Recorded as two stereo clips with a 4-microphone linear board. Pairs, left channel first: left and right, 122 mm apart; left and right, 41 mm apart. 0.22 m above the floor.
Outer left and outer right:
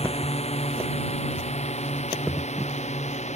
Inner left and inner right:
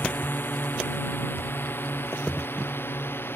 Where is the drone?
55° left (ahead or behind); by 3.4 s 65° left (ahead or behind).